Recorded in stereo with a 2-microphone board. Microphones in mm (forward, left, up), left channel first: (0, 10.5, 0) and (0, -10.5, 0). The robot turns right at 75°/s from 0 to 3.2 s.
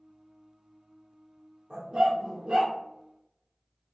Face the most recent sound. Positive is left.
turn(degrees=-25)